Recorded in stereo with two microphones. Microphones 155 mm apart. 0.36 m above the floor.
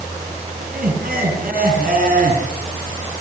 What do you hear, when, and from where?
0.6 s laughter: 70° right (ahead or behind), 4.5 m